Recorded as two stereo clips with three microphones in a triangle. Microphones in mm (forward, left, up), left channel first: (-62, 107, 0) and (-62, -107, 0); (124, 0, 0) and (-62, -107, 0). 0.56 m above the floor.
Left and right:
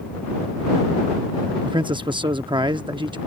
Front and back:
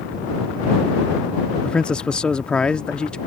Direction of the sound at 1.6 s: 50° right.